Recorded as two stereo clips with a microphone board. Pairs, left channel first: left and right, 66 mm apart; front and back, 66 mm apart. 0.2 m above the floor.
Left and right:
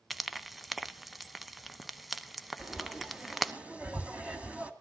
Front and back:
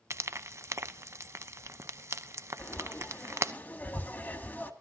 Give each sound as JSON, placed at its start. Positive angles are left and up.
{"t": 0.1, "sound": "frying", "azimuth_deg": 180, "distance_m": 0.6}
{"t": 2.6, "sound": "frying", "azimuth_deg": -40, "distance_m": 1.8}